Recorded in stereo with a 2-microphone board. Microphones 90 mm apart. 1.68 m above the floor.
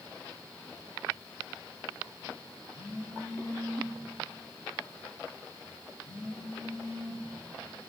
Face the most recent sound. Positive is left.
turn(degrees=60)  # may be behind; listen again after turning